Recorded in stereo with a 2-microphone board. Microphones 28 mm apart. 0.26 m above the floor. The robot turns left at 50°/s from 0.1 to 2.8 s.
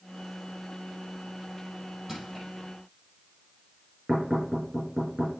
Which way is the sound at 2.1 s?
10° right (ahead or behind).